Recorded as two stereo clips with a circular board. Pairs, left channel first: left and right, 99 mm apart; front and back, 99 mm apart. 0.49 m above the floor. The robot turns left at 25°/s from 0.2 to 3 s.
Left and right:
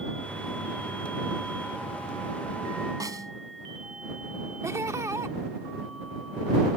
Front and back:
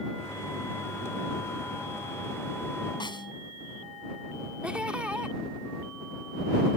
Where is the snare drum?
40° right.